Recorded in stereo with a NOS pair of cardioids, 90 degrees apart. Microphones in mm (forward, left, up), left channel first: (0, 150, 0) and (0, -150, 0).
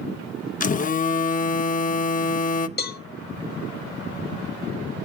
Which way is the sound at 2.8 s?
30° left.